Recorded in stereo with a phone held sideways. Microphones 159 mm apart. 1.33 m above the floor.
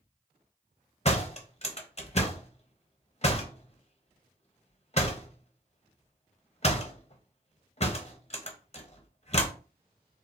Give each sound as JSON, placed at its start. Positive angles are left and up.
{"t": 1.1, "sound": "a door slam", "side_deg": 45, "distance_m": 0.8}